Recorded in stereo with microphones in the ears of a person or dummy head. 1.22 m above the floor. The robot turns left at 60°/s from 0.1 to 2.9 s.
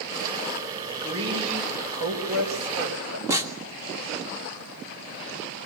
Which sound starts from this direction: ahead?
A woman speaking, at 1.0 s.